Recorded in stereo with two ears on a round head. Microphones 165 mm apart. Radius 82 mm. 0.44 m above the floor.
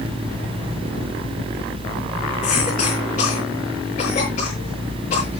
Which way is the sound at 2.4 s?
45° left (ahead or behind).